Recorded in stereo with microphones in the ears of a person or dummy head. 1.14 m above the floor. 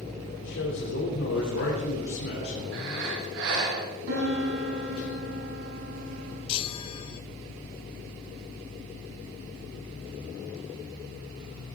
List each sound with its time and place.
0.4 s a man speaking: 80° left, 3.5 m
2.7 s breathing: 65° right (ahead or behind), 3.5 m
4.1 s a piano: 90° right, 7 m
6.5 s a chime: 30° left (ahead or behind), 0.7 m